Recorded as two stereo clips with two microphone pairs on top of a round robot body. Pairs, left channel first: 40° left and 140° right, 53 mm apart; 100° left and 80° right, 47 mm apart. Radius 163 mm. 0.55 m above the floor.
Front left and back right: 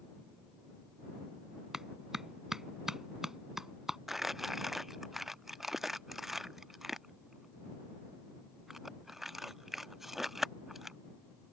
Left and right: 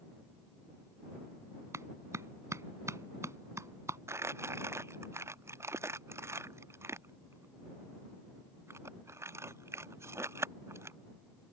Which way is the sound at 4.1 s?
55° right.